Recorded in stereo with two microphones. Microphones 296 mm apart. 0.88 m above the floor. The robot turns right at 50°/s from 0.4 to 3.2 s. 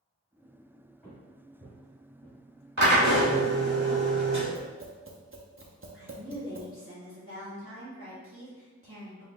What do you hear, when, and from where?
1.0 s footsteps: centre (ahead or behind), 1.9 m; by 2.3 s 65° right (ahead or behind), 2 m
2.8 s a drill: 75° right (ahead or behind), 1.7 m; by 4.5 s 70° right (ahead or behind), 1.7 m
4.5 s tapping: 45° right (ahead or behind), 0.6 m
5.9 s a woman speaking: 45° right (ahead or behind), 1.4 m